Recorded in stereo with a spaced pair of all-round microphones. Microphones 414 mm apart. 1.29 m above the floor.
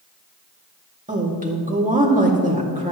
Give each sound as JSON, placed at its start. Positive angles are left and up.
{"t": 1.1, "sound": "a woman speaking", "side_deg": -20, "distance_m": 2.5}